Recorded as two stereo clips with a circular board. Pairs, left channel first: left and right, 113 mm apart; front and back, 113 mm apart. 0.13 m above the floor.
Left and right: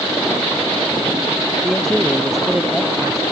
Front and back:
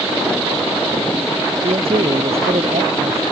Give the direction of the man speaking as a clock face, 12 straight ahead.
6 o'clock.